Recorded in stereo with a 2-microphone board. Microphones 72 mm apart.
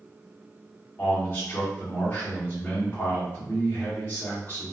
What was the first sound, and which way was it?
A man speaking, 35° left (ahead or behind).